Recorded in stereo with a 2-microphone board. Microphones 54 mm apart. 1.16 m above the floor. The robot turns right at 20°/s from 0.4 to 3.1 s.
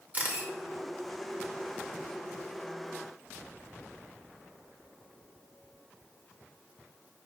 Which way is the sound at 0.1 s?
30° right (ahead or behind).